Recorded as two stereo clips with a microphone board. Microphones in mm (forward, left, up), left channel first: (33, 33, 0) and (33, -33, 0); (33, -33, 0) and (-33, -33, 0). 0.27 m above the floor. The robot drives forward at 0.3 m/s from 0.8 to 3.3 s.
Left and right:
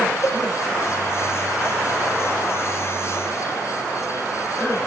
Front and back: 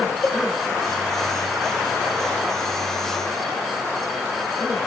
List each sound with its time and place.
0.2 s a cowbell: 75° left, 2.5 m